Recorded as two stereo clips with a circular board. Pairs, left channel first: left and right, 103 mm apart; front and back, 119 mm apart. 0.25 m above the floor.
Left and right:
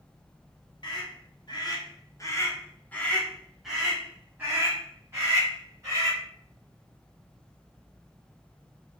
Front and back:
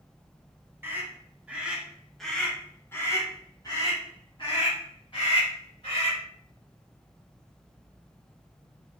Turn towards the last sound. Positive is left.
turn(degrees=-35)